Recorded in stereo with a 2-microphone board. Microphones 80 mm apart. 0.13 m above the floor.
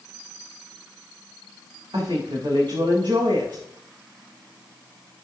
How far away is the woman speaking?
About 9 m.